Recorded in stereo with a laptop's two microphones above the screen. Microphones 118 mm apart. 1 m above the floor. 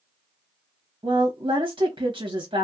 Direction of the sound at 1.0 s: 45° right (ahead or behind).